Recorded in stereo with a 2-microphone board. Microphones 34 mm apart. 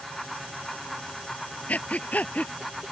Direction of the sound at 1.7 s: 45° left (ahead or behind).